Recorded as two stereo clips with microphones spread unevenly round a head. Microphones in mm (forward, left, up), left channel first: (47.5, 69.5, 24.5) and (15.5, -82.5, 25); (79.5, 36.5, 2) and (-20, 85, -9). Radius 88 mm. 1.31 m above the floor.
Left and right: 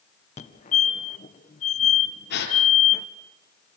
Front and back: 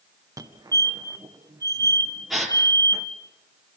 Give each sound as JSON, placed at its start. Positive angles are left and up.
{"t": 0.4, "sound": "a fire alarm", "azimuth_deg": 110, "distance_m": 1.8}
{"t": 2.3, "sound": "a gasp", "azimuth_deg": 65, "distance_m": 4.5}